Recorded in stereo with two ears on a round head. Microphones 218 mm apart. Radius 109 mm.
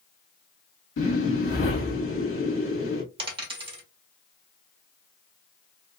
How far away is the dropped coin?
About 1.2 m.